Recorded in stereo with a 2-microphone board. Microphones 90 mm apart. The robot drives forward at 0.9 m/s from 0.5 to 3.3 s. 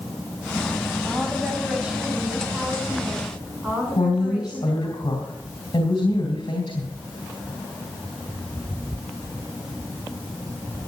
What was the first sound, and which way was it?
A woman speaking, 10° right (ahead or behind).